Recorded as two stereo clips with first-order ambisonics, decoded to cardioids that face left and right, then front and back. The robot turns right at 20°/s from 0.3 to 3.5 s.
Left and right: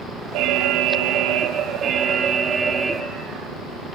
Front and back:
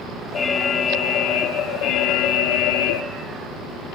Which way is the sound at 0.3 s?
65° right.